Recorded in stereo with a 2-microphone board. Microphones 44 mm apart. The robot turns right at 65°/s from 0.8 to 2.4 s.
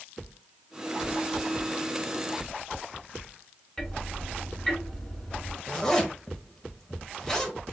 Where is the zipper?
15° left (ahead or behind), 0.9 m.